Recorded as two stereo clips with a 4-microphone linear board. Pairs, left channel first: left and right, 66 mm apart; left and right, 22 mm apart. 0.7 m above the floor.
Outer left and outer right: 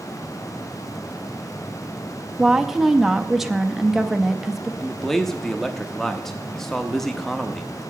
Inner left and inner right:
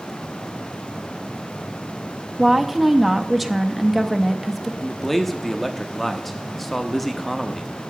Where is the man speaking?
5° left (ahead or behind), 0.6 m.